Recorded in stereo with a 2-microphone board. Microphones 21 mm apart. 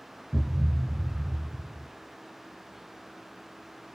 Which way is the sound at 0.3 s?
40° right (ahead or behind).